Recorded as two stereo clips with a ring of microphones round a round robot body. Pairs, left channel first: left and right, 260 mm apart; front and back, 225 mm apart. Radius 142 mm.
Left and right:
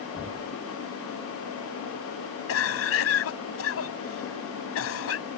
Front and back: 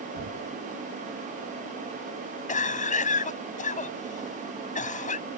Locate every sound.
0.1 s knocking: straight behind
2.5 s a cough: 55° left